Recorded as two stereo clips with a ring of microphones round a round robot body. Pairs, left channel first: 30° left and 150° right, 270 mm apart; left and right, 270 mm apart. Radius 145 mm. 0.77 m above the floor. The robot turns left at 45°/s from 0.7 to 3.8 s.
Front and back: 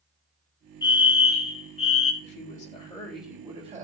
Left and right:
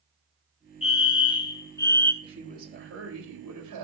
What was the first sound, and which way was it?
A fire alarm, 75° left.